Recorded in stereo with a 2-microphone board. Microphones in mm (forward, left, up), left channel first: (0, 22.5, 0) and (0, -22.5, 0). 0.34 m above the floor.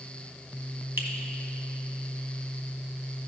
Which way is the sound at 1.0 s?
65° right (ahead or behind).